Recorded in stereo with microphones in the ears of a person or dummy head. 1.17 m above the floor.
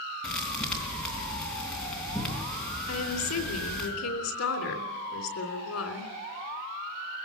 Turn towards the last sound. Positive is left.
turn(degrees=85)